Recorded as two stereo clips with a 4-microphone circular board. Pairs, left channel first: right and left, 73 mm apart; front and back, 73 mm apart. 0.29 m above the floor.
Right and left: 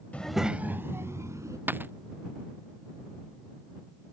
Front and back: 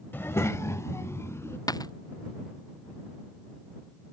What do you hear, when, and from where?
0.1 s a child speaking: 35° right; by 1.6 s 50° left
1.7 s a dropped coin: 30° left